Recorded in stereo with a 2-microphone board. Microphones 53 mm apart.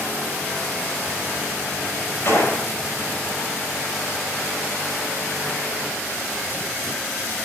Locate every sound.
2.2 s a gunshot: 55° left (ahead or behind), 6 m